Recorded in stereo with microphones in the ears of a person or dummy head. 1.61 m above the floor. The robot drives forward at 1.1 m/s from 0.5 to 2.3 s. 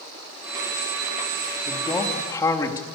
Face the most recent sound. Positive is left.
turn(degrees=20)  # may be behind; listen again after turning